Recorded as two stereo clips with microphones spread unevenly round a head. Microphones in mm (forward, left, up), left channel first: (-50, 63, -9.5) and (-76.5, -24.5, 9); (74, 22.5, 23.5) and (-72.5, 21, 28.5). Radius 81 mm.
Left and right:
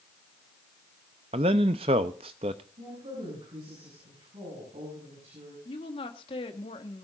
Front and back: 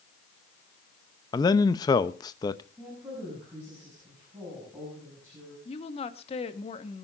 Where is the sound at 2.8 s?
105° right, 7.5 m.